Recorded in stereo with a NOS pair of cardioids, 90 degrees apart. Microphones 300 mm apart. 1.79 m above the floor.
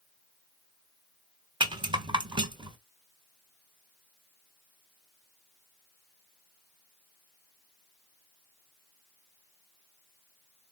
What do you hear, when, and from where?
1.6 s a rattle: 15° right, 1.2 m